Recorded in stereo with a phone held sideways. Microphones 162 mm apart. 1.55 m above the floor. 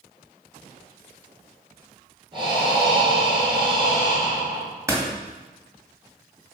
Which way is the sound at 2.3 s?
30° right (ahead or behind).